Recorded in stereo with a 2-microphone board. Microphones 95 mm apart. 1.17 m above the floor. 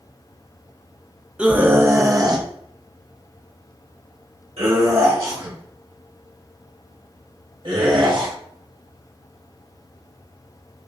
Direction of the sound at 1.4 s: 10° right (ahead or behind).